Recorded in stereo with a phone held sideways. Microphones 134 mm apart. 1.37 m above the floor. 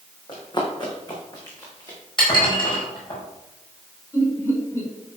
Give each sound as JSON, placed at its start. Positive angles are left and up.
{"t": 0.3, "sound": "running footsteps", "side_deg": 35, "distance_m": 4.5}
{"t": 2.2, "sound": "dishes clattering", "side_deg": 40, "distance_m": 5.0}
{"t": 4.1, "sound": "laughter", "side_deg": 20, "distance_m": 5.5}